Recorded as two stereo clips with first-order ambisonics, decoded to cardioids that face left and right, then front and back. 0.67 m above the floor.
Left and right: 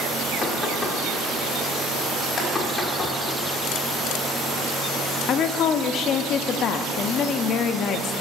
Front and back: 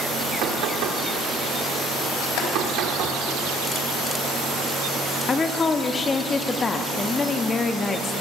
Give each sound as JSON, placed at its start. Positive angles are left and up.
{"t": 0.4, "sound": "knocking", "azimuth_deg": 170, "distance_m": 1.5}
{"t": 2.4, "sound": "boiling", "azimuth_deg": 20, "distance_m": 3.0}
{"t": 5.3, "sound": "a woman speaking", "azimuth_deg": 65, "distance_m": 0.6}